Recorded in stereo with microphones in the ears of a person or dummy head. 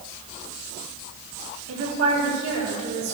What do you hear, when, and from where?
1.7 s a woman speaking: 85° right, 4.5 m